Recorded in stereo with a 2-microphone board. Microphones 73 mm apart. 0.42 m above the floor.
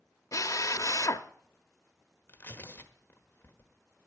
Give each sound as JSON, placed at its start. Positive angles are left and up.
{"t": 0.3, "sound": "a drill", "side_deg": 50, "distance_m": 0.8}
{"t": 2.3, "sound": "tearing paper", "side_deg": 30, "distance_m": 1.3}